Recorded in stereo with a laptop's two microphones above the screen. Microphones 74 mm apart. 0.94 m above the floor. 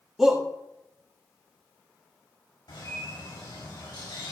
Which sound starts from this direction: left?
A bird, at 2.7 s.